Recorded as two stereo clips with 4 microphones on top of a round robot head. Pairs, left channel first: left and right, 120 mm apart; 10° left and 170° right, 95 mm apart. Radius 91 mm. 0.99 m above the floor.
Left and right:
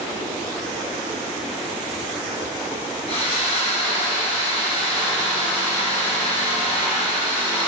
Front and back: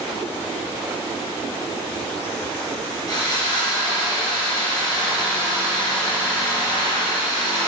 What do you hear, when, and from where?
3.1 s sawing: 55° left, 3 m